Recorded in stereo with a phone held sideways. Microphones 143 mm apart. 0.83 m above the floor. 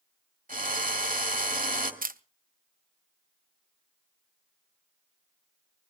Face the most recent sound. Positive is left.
turn(degrees=-85)